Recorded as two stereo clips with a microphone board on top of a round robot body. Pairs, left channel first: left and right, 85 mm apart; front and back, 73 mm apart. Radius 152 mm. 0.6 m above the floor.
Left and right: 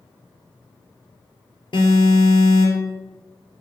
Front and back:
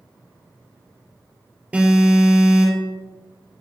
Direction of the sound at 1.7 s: 105° left.